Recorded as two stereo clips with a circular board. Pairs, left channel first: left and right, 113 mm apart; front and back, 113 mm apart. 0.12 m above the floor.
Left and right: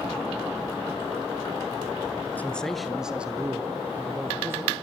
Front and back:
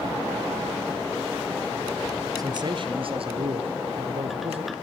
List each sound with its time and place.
2.4 s a man speaking: 155° left, 1.4 m; by 4.7 s 155° right, 4 m